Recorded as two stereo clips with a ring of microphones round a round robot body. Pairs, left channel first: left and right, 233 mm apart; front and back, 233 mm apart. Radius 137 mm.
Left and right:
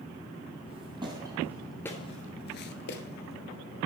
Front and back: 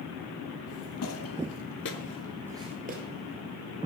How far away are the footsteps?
About 1.7 m.